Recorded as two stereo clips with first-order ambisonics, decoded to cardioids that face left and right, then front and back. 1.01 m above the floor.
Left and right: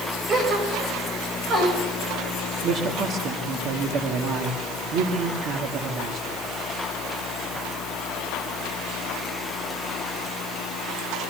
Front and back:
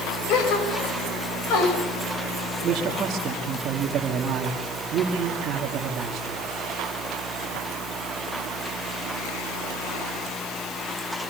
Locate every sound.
0.3 s a gasp: 30° right, 5.5 m
2.6 s a man speaking: 125° right, 2.5 m